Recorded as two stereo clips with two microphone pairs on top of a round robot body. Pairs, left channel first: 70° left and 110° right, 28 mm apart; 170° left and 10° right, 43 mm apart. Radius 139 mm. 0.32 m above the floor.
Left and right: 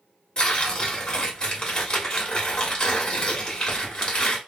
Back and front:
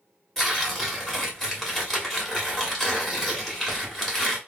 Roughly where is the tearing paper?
Left.